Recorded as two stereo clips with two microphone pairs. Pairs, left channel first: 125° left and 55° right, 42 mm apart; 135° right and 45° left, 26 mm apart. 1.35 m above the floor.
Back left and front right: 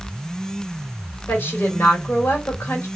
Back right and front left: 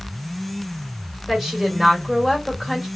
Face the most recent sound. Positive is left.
turn(degrees=135)